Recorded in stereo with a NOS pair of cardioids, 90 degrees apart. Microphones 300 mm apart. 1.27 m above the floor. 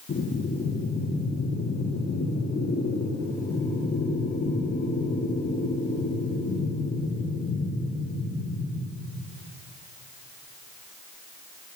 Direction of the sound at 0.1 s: 35° left.